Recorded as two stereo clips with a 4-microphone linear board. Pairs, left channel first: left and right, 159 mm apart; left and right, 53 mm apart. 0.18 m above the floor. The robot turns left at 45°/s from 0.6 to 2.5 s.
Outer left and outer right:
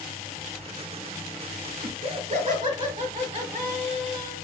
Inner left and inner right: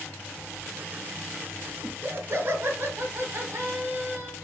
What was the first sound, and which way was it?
Laughter, 95° right.